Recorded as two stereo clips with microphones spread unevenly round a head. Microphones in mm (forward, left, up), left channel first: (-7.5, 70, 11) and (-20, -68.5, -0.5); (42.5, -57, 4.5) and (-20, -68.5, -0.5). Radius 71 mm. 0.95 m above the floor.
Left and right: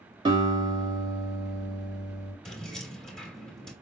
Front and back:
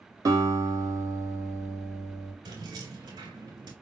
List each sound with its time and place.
0.2 s a guitar: 150° right, 2 m
2.5 s keys jangling: 170° left, 1.6 m